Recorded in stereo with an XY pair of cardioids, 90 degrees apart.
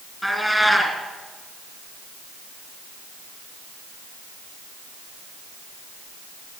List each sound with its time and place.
0.2 s a cat meowing: straight ahead, 4 m